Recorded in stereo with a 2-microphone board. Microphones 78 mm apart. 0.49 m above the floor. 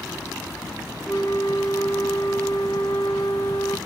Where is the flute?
70° left (ahead or behind), 0.7 m.